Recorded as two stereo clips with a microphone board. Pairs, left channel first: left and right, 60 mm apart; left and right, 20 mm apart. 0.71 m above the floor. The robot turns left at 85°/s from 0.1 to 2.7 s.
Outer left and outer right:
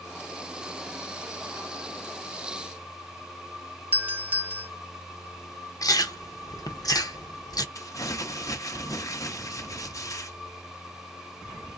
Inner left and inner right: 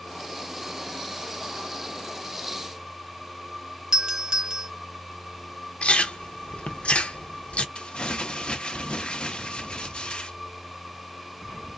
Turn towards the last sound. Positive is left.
turn(degrees=65)  # may be behind; listen again after turning